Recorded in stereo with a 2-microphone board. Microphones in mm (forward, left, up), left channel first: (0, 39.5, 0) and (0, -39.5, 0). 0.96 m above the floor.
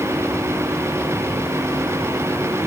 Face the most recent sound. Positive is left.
No sound to turn to.